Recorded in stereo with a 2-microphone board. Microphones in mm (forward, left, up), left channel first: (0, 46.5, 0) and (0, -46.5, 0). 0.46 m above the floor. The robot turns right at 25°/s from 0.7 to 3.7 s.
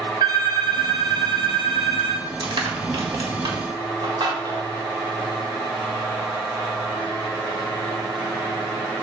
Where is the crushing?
55° right (ahead or behind), 1.6 m; by 4.7 s 50° right (ahead or behind), 1.6 m.